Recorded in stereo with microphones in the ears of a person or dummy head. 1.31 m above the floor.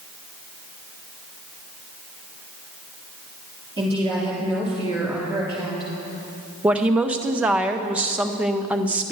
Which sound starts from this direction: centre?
A woman speaking, at 6.6 s.